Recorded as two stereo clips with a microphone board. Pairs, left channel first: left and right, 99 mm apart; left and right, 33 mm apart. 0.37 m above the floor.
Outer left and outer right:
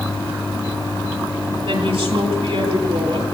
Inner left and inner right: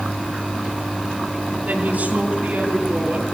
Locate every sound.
1.6 s a woman speaking: 65° right (ahead or behind), 9.5 m